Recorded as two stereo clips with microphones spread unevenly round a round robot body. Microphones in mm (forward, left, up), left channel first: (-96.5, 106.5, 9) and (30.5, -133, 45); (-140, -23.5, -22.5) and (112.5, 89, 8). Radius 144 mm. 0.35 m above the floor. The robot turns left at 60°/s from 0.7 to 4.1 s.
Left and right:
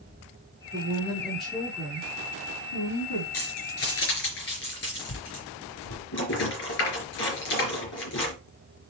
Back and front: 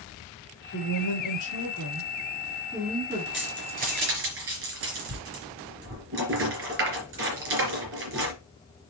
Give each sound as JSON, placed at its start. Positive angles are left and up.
{"t": 0.7, "sound": "a woman speaking", "azimuth_deg": -110, "distance_m": 5.5}
{"t": 3.3, "sound": "keys jangling", "azimuth_deg": 115, "distance_m": 4.0}